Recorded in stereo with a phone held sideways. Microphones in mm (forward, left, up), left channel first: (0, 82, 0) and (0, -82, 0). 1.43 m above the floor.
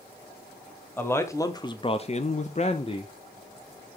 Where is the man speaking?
15° left (ahead or behind), 1.1 m; by 3.1 s 30° left (ahead or behind), 0.8 m.